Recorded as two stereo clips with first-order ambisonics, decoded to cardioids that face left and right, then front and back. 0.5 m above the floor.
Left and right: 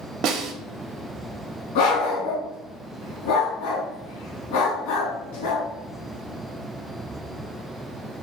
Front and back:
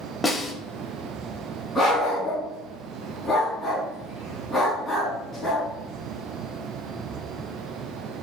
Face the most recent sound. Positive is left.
turn(degrees=90)